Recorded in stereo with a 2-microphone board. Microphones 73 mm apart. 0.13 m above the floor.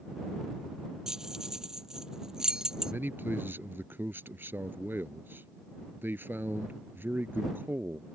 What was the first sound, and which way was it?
Keys jangling, 10° right (ahead or behind).